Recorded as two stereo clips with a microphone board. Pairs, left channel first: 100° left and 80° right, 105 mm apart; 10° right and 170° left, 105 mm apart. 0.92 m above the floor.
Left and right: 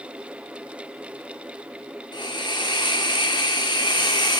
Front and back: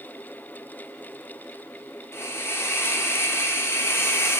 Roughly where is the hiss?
Ahead left.